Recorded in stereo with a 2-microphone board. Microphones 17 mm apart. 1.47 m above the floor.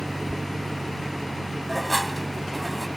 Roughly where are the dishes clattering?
Centre.